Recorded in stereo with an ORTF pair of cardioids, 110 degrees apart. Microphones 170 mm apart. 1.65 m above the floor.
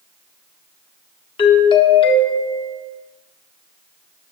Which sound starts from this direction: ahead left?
A doorbell, at 1.4 s.